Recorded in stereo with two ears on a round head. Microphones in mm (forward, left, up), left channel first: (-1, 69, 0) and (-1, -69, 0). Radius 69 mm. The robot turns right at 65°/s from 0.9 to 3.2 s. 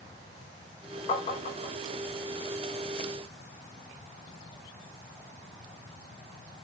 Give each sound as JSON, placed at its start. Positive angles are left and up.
{"t": 1.1, "sound": "tapping", "side_deg": 30, "distance_m": 1.3}